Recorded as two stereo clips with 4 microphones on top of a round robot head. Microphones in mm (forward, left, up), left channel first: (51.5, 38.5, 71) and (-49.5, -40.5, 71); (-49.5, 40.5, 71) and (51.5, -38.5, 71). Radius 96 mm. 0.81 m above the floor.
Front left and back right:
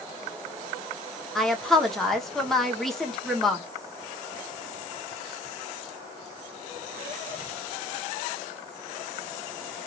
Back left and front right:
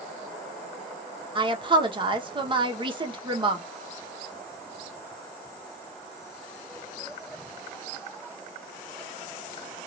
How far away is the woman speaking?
About 0.9 m.